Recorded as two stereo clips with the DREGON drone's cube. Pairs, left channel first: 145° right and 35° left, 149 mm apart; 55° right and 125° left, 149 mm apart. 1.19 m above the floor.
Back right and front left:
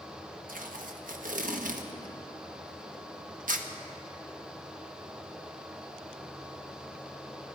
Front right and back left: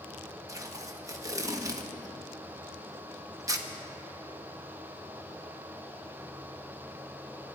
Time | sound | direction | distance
0.5 | tape being pulled | 60° left | 1.0 m